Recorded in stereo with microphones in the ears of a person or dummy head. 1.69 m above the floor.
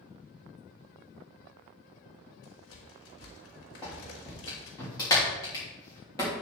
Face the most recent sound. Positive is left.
turn(degrees=20)  # may be behind; listen again after turning